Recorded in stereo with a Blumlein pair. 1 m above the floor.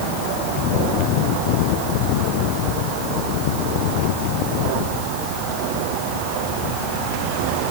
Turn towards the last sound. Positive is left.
No sound to turn to.